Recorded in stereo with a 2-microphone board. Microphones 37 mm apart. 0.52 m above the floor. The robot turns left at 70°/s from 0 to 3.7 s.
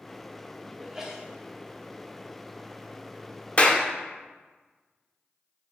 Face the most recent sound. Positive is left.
turn(degrees=30)  # may be behind; listen again after turning